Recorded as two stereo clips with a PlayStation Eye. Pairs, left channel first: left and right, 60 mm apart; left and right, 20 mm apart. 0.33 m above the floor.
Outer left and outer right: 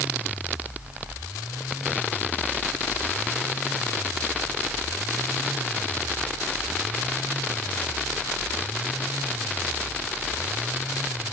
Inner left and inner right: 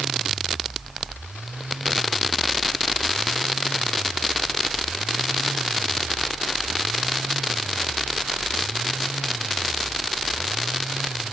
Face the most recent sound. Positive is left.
No sound to turn to.